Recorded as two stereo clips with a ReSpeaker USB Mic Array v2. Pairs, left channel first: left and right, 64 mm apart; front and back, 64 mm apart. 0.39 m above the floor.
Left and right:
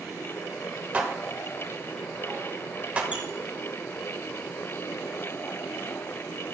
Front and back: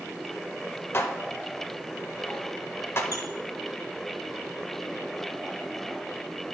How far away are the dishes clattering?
About 0.9 m.